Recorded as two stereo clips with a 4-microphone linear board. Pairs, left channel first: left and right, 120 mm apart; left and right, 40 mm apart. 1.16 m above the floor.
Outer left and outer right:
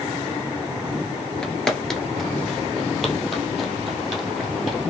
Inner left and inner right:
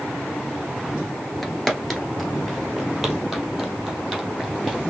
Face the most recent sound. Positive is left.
turn(degrees=-5)  # may be behind; listen again after turning